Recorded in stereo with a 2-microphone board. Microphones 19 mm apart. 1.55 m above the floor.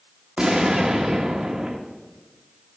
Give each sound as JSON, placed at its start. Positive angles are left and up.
{"t": 0.4, "sound": "an explosion", "side_deg": -50, "distance_m": 1.2}